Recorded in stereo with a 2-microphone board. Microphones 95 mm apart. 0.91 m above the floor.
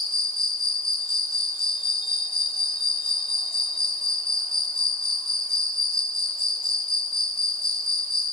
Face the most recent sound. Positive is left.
turn(degrees=75)  # may be behind; listen again after turning